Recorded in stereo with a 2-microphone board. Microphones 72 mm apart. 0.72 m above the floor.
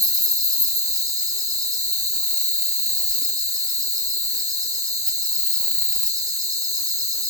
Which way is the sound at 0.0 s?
50° right (ahead or behind).